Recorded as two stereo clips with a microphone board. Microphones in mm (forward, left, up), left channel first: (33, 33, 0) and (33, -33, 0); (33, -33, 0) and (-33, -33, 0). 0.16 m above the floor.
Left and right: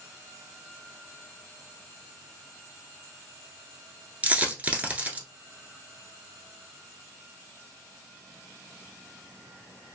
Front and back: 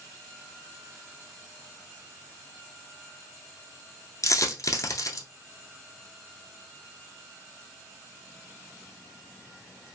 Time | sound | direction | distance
4.2 | a dropped coin | 25° right | 0.9 m